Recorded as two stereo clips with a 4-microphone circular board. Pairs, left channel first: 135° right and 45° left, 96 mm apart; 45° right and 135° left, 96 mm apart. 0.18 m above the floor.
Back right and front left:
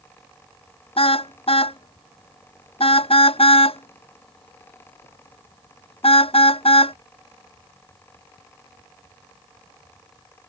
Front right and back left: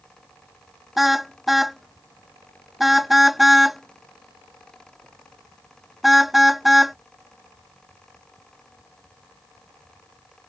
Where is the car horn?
135° right.